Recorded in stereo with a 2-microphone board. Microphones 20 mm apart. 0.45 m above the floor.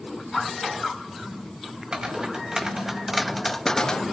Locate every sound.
1.9 s footsteps: 35° right (ahead or behind), 1.8 m; by 4.0 s 40° left (ahead or behind), 1.0 m